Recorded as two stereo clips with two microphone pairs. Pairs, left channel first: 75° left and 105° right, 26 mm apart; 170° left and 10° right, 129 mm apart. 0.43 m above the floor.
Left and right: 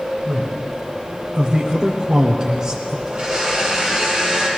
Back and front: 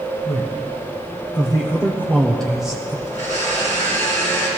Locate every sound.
0.2 s a man speaking: 160° right, 2.0 m; by 3.0 s 65° right, 1.0 m
3.1 s a blender: 165° right, 4 m